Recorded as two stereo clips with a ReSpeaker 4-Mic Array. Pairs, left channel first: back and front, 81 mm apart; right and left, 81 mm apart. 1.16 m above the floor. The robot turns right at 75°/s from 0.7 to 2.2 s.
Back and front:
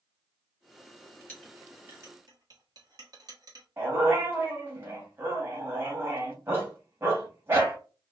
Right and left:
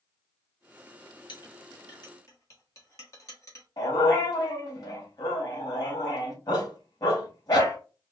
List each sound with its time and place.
1.3 s a clink: 110° right, 1.5 m; by 3.7 s 40° right, 1.5 m
3.8 s a dog barking: 60° right, 1.9 m